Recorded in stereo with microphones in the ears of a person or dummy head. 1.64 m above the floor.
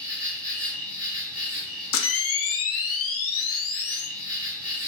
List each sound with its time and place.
0.0 s an insect: 5° left (ahead or behind), 1.1 m
1.9 s a camera shutter: 70° left (ahead or behind), 0.5 m